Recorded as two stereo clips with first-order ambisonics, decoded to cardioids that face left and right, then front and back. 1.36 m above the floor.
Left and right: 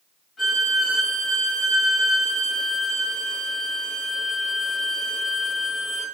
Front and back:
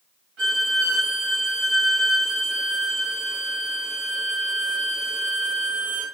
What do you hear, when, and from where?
0.4 s a violin: 170° left, 2.5 m